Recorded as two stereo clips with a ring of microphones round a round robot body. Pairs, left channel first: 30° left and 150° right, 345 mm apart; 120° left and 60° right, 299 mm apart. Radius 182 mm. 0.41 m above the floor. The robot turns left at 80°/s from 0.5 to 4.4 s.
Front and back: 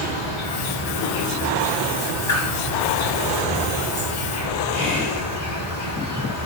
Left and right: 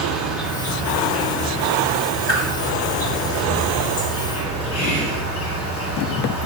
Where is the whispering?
100° left, 2.0 m.